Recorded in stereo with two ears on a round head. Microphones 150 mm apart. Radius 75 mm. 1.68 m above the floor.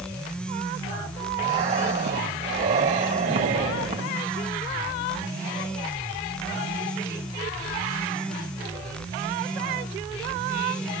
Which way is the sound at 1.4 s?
45° right (ahead or behind).